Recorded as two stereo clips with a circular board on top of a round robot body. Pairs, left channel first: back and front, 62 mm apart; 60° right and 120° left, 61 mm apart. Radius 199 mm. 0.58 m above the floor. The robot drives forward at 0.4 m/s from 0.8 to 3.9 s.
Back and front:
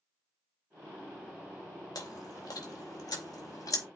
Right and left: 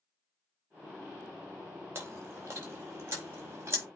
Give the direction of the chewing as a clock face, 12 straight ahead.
6 o'clock.